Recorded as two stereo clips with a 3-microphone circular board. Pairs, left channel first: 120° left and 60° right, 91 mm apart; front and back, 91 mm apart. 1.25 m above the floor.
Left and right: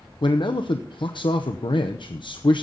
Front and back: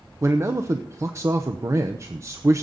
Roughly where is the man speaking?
Behind left.